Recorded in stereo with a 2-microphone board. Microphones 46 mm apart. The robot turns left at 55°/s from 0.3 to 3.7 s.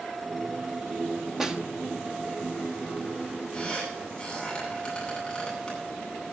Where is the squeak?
15° left (ahead or behind), 9 m; by 5.8 s 25° left (ahead or behind), 9 m.